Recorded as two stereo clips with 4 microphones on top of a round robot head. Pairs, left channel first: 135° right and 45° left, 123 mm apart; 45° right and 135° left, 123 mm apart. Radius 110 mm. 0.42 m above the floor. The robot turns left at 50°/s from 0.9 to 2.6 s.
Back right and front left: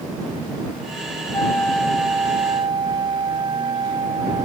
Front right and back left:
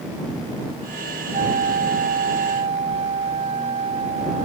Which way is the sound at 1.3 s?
160° left.